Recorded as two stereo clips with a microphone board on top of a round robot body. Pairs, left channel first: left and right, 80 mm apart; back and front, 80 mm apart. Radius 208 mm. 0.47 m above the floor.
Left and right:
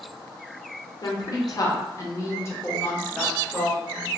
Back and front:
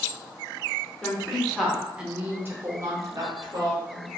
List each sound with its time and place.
1.0 s a woman speaking: 105° left, 1.3 m; by 4.1 s 5° left, 1.4 m